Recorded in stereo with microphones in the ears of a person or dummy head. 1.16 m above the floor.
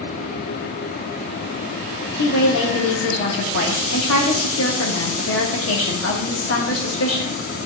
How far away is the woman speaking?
About 1.4 m.